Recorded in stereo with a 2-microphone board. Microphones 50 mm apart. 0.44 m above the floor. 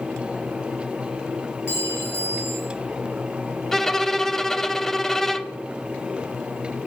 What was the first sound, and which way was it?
A clink, 55° left (ahead or behind).